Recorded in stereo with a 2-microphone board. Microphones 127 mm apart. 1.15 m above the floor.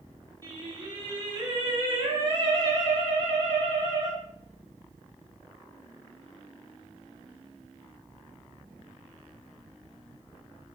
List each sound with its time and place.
0.4 s singing: 35° right (ahead or behind), 0.8 m